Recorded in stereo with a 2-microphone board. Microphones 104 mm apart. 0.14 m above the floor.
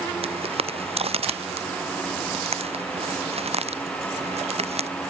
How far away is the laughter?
I don't hear laughter.